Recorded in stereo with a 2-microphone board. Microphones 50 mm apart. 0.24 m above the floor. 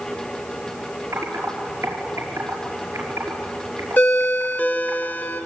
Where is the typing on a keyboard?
75° right (ahead or behind), 5.5 m.